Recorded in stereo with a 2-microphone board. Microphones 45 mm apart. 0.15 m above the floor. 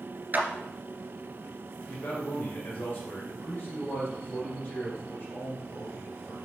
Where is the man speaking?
50° left (ahead or behind), 2 m.